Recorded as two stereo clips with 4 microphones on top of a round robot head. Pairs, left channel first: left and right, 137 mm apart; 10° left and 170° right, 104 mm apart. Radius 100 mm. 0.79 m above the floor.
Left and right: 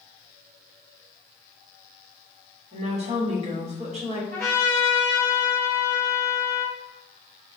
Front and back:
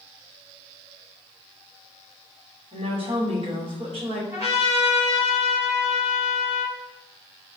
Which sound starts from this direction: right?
A trumpet, at 4.3 s.